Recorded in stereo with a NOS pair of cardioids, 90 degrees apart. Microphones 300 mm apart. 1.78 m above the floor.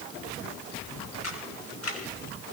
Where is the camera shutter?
60° left, 5 m.